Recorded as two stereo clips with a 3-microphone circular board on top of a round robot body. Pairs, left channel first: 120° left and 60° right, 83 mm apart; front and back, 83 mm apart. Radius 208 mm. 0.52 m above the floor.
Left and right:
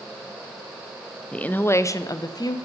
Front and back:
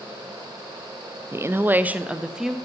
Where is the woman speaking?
175° right, 0.6 m; by 2.6 s 95° left, 0.8 m.